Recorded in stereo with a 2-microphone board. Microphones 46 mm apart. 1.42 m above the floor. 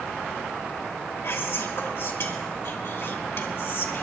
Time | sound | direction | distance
1.2 | whispering | 55° left (ahead or behind) | 2.5 m